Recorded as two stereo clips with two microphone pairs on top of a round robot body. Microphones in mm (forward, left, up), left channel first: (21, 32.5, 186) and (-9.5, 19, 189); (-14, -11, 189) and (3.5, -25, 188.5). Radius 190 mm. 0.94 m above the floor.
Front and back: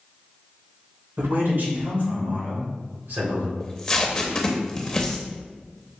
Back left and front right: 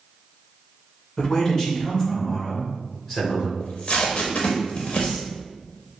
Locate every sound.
1.2 s a man speaking: 145° right, 1.8 m; by 3.5 s 140° right, 3.5 m
3.6 s tape being pulled: 95° left, 0.5 m